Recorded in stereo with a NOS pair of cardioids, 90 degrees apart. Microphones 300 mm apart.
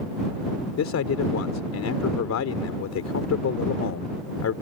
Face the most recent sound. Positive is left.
turn(degrees=60)